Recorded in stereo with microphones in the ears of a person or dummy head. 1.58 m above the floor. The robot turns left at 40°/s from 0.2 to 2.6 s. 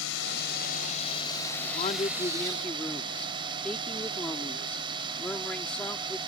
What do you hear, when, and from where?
0.0 s a drone: 75° left; by 6.3 s 20° right
1.6 s a man speaking: 50° left; by 6.2 s 10° left